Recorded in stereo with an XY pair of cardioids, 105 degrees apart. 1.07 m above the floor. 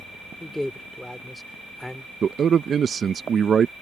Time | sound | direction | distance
0.4 | a man speaking | 10° left | ?
2.2 | a man speaking | 45° right | ?